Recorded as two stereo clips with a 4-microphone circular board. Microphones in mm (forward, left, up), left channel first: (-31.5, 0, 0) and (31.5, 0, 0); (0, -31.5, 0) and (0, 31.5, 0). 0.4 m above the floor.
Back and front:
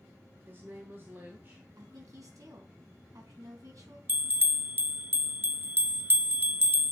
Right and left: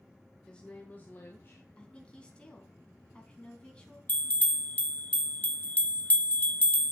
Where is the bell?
35° right, 0.5 m.